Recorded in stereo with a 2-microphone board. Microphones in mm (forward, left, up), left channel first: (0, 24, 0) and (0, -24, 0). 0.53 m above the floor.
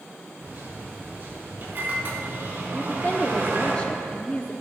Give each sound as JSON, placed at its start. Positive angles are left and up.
{"t": 0.4, "sound": "a microwave", "side_deg": -50, "distance_m": 3.5}
{"t": 2.7, "sound": "a woman speaking", "side_deg": 25, "distance_m": 0.6}